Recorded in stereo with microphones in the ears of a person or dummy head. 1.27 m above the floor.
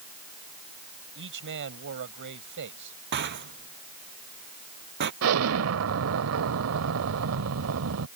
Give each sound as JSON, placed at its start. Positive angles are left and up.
{"t": 1.1, "sound": "a man speaking", "side_deg": -65}
{"t": 3.1, "sound": "a rattle", "side_deg": -60}
{"t": 5.2, "sound": "an explosion", "side_deg": -75}